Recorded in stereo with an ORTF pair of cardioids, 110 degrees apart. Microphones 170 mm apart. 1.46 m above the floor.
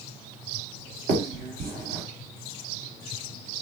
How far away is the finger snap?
About 1.0 m.